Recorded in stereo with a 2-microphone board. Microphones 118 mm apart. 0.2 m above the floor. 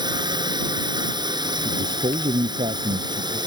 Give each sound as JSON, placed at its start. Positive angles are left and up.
{"t": 0.0, "sound": "a drone", "side_deg": -40}
{"t": 1.6, "sound": "a man speaking", "side_deg": -60}